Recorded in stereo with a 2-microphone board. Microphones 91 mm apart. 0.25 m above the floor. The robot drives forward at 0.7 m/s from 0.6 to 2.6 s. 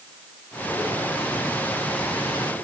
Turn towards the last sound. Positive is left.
No sound to turn to.